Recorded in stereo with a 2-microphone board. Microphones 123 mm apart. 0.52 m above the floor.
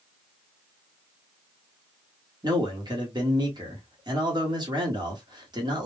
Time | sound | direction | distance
2.4 | a man speaking | 35° right (ahead or behind) | 1.2 m